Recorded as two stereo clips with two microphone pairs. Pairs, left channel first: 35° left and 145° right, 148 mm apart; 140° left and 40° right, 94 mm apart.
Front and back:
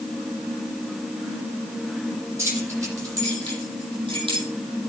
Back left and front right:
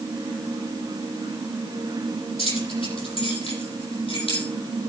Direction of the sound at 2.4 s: 140° left.